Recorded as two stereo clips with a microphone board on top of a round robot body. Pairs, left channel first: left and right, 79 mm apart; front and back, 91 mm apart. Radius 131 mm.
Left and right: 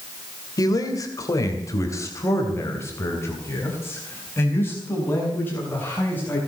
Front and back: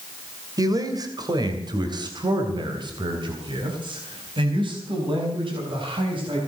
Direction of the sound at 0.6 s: 130° left.